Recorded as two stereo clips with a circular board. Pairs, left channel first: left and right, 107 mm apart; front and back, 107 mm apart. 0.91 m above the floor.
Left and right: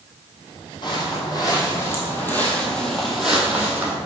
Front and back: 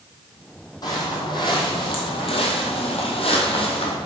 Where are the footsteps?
50° left, 2 m; by 4.0 s 20° right, 2.0 m.